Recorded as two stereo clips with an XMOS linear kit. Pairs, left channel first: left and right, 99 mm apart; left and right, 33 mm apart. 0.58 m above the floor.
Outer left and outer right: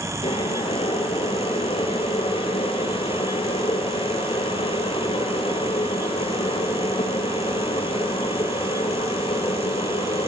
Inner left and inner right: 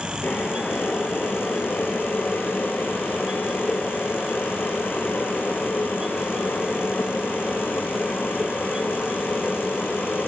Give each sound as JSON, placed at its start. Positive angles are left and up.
{"t": 0.2, "sound": "boiling", "side_deg": 65, "distance_m": 4.0}